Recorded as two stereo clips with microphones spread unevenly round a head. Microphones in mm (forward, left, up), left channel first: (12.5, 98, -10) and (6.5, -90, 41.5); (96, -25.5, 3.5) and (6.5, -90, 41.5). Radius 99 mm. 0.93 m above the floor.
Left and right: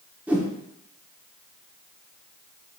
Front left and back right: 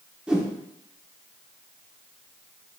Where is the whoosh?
125° right, 0.5 m.